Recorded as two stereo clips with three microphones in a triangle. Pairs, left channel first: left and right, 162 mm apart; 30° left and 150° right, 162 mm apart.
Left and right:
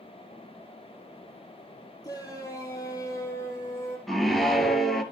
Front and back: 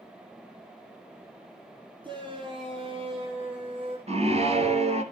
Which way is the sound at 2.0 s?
155° left.